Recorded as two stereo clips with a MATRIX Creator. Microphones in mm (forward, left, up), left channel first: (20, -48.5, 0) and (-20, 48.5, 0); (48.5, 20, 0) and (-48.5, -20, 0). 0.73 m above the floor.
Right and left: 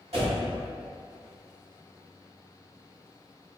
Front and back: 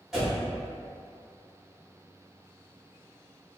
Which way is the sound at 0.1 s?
115° left.